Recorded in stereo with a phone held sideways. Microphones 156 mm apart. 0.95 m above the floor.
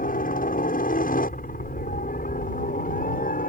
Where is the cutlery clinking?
I don't hear cutlery clinking.